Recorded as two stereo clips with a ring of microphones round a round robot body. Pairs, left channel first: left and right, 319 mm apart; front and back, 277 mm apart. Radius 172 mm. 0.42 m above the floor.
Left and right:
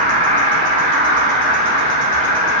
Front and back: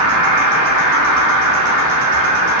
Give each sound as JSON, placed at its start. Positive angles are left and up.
{"t": 0.0, "sound": "an insect", "azimuth_deg": -155, "distance_m": 0.7}